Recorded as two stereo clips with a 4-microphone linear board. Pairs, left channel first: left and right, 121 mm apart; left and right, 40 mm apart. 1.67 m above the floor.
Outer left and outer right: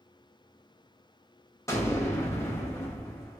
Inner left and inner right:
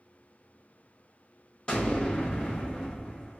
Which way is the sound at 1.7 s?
25° left (ahead or behind).